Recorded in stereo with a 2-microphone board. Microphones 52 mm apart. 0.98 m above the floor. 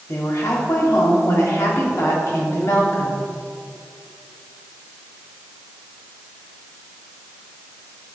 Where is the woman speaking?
70° left (ahead or behind), 2.5 m.